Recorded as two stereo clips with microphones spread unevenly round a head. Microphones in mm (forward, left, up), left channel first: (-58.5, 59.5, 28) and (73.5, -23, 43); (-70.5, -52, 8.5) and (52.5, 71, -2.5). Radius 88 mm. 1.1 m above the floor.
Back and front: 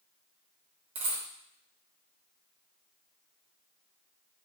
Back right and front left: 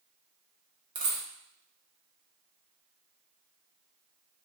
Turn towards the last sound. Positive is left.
turn(degrees=-5)